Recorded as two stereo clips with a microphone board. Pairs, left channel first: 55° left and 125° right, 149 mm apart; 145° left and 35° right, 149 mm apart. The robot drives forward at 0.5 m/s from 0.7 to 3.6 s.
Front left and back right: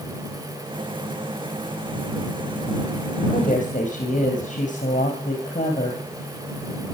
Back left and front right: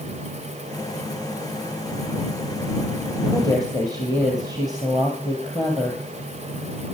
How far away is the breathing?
I don't hear breathing.